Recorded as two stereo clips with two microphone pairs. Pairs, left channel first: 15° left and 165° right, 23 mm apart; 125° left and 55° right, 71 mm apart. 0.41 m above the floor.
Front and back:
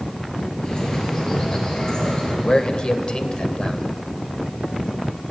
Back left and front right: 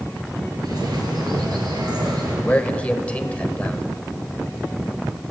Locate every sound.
0.6 s a bird: 40° right, 4 m
2.4 s a man speaking: 60° left, 1.3 m